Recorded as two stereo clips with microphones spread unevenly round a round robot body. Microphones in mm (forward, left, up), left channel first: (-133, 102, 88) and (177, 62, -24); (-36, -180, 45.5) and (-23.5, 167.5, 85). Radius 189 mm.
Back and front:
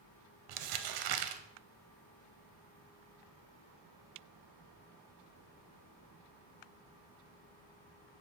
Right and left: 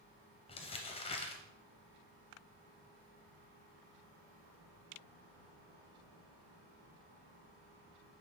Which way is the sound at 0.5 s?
15° right.